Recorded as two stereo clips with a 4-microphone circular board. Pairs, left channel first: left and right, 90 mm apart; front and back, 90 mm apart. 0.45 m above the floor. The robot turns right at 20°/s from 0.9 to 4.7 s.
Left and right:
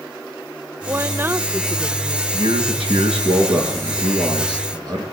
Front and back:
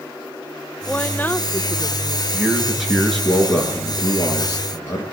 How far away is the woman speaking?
About 0.8 m.